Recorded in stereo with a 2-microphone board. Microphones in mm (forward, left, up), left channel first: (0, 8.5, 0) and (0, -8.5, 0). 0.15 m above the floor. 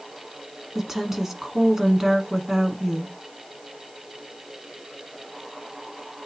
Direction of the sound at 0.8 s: 20° right (ahead or behind).